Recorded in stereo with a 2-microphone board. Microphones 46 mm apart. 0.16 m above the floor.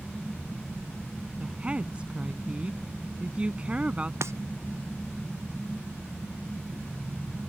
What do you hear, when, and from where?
1.4 s a woman speaking: 25° right (ahead or behind)
4.2 s breaking glass: 80° right